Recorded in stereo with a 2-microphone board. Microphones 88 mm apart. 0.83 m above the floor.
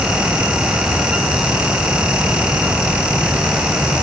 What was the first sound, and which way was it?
Only background noise.